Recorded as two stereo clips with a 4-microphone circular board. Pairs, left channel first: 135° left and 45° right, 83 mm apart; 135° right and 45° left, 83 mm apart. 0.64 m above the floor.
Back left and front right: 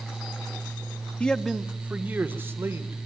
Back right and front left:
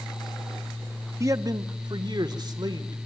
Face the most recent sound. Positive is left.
turn(degrees=15)